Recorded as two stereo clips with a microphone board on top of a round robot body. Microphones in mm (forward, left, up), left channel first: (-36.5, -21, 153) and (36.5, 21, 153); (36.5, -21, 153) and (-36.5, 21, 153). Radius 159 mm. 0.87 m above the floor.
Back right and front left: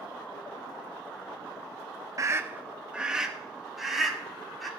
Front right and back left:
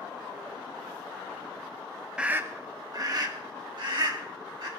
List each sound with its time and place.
2.2 s a scream: 75° left, 0.5 m; by 4.7 s 120° left, 2 m